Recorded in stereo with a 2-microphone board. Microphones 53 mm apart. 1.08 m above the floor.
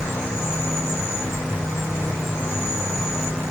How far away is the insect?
About 1.7 m.